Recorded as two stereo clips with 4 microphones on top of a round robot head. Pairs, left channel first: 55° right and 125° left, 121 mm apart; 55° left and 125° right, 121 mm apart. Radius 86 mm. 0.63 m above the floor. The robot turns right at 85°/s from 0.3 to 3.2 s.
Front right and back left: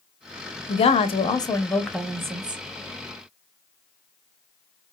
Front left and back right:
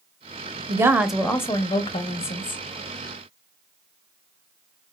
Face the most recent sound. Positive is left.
turn(degrees=140)